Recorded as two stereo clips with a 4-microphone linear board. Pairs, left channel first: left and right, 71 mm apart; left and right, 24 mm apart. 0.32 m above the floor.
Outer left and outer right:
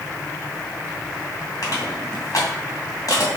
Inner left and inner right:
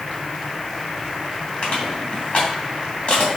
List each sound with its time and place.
1.6 s crushing: 55° left (ahead or behind), 3 m